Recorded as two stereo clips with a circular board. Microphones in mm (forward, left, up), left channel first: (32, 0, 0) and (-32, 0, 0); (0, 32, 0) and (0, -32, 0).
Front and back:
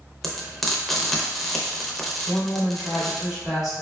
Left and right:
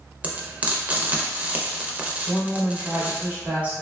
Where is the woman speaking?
105° right, 1.5 m.